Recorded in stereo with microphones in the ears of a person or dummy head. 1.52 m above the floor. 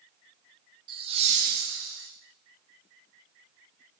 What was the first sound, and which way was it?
Laughter, 25° right (ahead or behind).